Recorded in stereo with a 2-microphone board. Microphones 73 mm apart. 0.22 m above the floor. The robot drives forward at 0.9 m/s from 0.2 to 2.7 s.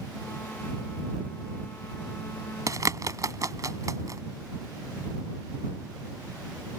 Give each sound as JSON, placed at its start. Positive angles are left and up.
{"t": 2.7, "sound": "a bird", "side_deg": -45}